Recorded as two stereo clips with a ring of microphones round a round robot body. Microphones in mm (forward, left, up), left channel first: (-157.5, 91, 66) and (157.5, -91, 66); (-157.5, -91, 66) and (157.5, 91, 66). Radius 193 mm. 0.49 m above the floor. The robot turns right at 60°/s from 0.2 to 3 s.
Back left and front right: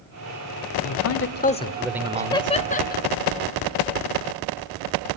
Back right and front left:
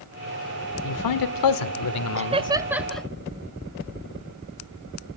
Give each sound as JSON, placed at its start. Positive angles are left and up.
{"t": 0.8, "sound": "a man speaking", "azimuth_deg": 180, "distance_m": 1.9}
{"t": 2.2, "sound": "laughter", "azimuth_deg": 75, "distance_m": 0.8}